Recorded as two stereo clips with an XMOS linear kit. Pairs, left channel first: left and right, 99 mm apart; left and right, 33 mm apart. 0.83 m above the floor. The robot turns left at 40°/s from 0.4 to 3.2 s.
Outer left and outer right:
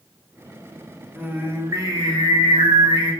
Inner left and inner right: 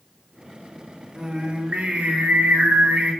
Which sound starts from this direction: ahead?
Singing, at 1.1 s.